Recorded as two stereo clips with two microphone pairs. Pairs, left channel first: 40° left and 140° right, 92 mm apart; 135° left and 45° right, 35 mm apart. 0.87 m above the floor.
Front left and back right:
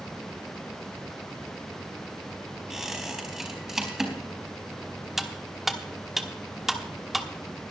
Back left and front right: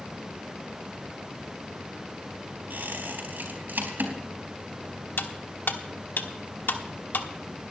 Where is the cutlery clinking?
130° left, 1.1 m.